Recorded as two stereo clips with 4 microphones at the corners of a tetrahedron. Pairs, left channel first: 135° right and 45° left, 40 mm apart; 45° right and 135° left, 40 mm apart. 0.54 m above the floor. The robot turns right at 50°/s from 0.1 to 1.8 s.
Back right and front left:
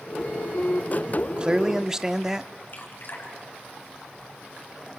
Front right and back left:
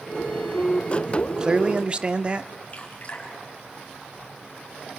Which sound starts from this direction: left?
A man speaking, at 1.1 s.